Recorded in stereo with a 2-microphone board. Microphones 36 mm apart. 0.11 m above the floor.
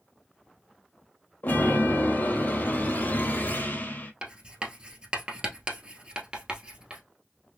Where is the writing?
30° right (ahead or behind), 1.1 m.